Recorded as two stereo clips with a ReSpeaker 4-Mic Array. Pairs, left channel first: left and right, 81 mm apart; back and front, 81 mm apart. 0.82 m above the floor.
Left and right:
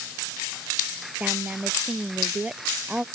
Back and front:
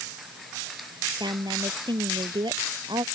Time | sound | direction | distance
1.2 | a woman speaking | 15° right | ?